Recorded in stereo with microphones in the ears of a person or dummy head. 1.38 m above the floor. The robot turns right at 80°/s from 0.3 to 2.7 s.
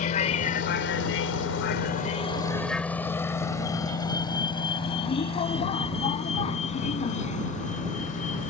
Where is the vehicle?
45° left (ahead or behind); by 8.5 s 40° left (ahead or behind).